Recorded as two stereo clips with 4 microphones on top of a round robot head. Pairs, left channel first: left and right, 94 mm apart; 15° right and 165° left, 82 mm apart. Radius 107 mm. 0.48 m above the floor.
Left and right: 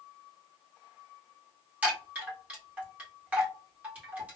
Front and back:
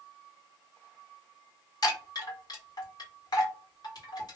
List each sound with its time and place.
1.8 s a chime: 20° right, 2.0 m